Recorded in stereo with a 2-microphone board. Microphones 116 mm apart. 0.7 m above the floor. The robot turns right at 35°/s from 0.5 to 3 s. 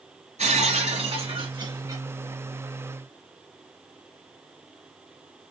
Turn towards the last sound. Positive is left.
turn(degrees=10)